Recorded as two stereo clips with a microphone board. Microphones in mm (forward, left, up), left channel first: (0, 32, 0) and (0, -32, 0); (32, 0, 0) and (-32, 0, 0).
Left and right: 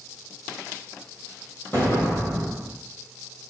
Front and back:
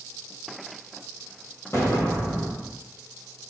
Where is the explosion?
45° left, 1.7 m.